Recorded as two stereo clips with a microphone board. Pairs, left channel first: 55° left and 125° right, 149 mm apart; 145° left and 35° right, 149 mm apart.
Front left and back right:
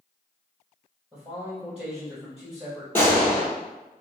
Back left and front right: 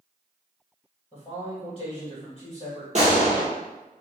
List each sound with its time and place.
1.1 s a man speaking: 160° left, 1.9 m
3.0 s a gunshot: 15° right, 1.2 m